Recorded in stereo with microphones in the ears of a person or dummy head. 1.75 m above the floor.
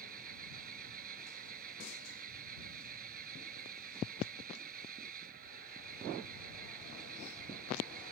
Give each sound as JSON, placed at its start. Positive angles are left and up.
{"t": 0.0, "sound": "an engine running", "side_deg": -45}